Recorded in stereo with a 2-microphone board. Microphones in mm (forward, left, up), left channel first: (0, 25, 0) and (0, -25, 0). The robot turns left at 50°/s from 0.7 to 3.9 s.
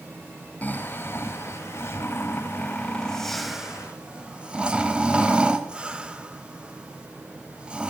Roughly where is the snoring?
Left.